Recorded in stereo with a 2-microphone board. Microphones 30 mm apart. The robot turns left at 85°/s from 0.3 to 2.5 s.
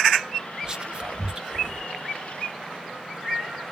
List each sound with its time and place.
0.6 s whispering: 25° right (ahead or behind), 1.1 m; by 1.9 s 15° right (ahead or behind), 1.1 m